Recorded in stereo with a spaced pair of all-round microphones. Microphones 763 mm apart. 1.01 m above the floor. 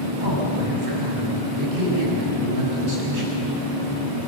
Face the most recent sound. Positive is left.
turn(degrees=-80)